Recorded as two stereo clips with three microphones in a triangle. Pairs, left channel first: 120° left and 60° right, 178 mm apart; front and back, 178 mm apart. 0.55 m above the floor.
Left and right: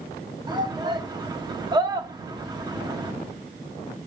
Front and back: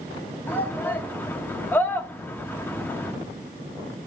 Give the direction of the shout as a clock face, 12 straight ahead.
2 o'clock.